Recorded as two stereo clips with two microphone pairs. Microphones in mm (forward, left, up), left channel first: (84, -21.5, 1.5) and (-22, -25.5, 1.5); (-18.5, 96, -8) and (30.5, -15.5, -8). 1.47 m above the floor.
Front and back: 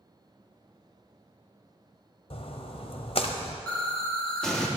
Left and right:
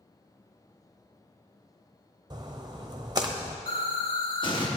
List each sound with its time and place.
2.3 s a splash: 10° right, 0.8 m
3.7 s an explosion: 80° left, 1.2 m